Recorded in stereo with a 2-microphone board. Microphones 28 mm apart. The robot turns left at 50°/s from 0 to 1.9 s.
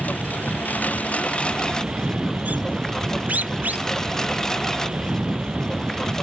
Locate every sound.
0.0 s a lawn mower: 115° left; by 6.2 s 20° left
1.4 s a bird: 55° right (ahead or behind); by 6.1 s 80° right